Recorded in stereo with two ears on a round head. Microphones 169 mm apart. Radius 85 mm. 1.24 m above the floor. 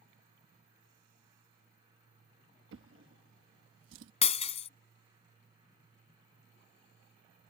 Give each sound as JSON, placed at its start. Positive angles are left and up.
{"t": 2.7, "sound": "a drawer", "side_deg": -75}
{"t": 4.2, "sound": "breaking glass", "side_deg": 35}